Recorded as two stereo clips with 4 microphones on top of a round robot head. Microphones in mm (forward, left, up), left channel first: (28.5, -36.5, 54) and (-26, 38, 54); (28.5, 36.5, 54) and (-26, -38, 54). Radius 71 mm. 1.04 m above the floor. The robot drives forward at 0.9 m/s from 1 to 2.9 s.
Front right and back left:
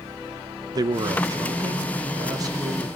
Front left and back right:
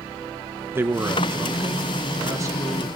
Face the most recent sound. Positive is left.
turn(degrees=175)